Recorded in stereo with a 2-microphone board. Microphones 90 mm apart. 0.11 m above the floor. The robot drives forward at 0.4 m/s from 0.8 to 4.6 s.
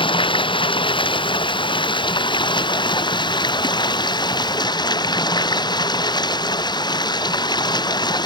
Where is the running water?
60° left (ahead or behind); by 8.3 s 50° left (ahead or behind).